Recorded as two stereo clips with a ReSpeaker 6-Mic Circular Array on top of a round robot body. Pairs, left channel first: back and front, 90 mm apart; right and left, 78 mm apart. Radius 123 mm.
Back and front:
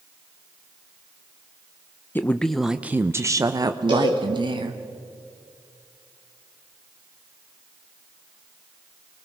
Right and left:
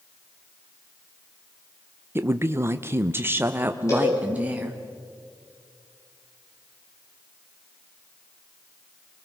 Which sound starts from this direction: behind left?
A woman speaking, at 2.1 s.